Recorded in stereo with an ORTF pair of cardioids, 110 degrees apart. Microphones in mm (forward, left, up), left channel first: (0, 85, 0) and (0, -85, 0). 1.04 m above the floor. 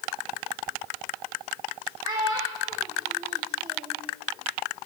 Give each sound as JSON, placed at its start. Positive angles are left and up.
{"t": 2.0, "sound": "a child speaking", "azimuth_deg": -25, "distance_m": 0.7}